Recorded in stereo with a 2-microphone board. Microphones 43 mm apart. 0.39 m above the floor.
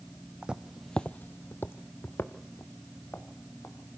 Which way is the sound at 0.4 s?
25° right (ahead or behind).